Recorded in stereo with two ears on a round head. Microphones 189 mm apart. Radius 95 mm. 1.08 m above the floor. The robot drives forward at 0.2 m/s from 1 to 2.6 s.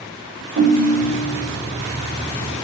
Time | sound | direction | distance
0.6 | a ringtone | 70° right (ahead or behind) | 1.2 m